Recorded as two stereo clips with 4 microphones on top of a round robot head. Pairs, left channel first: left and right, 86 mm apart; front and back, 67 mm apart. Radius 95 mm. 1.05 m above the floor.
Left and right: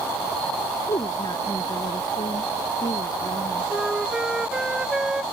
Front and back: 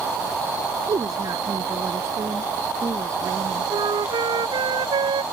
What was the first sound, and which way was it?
A woman speaking, 145° left.